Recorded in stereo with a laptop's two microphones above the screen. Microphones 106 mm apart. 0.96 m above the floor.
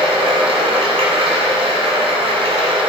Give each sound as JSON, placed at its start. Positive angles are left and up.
{"t": 0.0, "sound": "running water", "side_deg": -70, "distance_m": 1.9}